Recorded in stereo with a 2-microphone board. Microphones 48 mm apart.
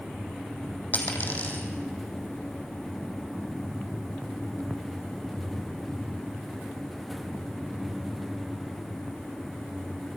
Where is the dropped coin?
35° left (ahead or behind), 3.5 m.